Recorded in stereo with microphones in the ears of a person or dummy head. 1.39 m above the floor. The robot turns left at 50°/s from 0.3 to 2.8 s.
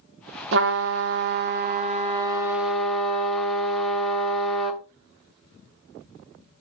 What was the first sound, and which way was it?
A trumpet, 70° right.